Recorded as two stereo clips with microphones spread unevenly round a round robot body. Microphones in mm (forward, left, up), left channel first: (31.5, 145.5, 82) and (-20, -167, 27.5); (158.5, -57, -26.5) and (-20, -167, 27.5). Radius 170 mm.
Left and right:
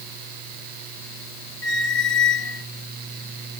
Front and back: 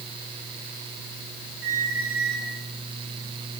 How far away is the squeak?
About 1.1 m.